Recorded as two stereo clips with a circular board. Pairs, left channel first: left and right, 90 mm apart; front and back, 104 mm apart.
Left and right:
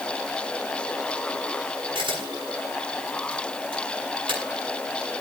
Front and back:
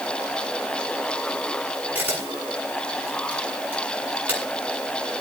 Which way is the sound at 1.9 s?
110° right.